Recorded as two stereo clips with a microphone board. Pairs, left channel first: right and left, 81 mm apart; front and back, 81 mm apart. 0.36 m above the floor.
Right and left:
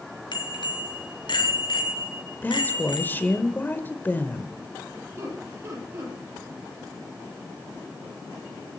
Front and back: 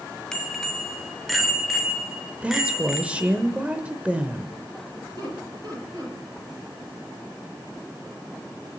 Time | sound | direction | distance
0.3 | a bicycle bell | 85° right | 2.5 m
2.4 | a woman speaking | 125° right | 1.2 m
5.2 | laughter | 145° left | 9.5 m